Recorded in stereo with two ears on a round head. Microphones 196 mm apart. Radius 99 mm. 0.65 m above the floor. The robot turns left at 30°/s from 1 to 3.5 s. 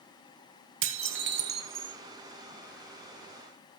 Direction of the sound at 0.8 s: 65° right (ahead or behind).